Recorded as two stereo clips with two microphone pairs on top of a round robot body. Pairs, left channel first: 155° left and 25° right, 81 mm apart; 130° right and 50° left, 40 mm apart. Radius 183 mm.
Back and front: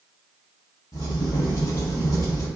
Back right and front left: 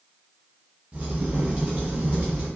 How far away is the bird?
No bird in this recording.